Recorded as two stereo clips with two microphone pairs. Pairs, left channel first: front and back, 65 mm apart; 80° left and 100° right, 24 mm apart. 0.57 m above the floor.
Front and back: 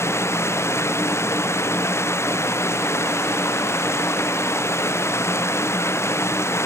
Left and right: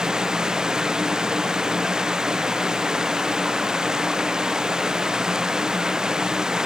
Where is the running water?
45° right.